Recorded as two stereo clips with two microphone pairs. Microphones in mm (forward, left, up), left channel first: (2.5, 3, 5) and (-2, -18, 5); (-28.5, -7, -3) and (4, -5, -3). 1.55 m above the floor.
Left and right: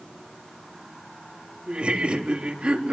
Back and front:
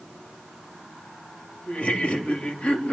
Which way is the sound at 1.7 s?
125° right.